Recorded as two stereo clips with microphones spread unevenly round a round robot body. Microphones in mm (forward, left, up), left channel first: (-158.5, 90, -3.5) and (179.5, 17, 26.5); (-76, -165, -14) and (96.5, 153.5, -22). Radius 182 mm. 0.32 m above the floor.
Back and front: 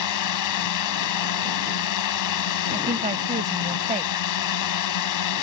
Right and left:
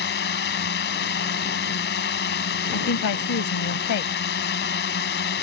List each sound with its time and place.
0.0 s a drone: 175° right
2.7 s a woman speaking: 80° right